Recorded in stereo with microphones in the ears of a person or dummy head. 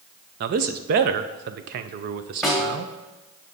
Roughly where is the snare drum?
Centre.